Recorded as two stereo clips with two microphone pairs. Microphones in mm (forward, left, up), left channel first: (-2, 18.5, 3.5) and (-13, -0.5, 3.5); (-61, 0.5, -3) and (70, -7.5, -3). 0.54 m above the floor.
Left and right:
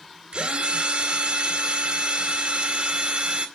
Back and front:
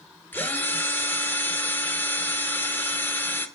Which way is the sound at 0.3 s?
110° right.